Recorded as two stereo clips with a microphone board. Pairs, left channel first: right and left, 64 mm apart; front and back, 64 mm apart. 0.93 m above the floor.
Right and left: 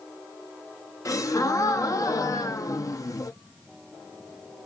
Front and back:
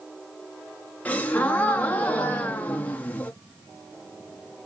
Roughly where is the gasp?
Ahead right.